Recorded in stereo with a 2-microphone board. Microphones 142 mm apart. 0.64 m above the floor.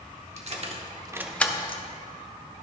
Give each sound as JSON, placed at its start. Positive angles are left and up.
{"t": 0.4, "sound": "keys jangling", "side_deg": -50, "distance_m": 1.3}